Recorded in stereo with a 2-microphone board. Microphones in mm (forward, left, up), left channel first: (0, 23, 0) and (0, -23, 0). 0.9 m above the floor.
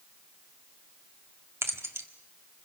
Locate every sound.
1.6 s keys jangling: 70° right (ahead or behind), 1.6 m